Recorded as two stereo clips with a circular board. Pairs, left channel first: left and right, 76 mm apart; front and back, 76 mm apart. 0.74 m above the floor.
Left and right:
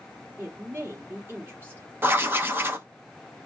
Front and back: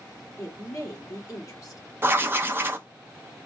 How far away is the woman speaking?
About 1.8 m.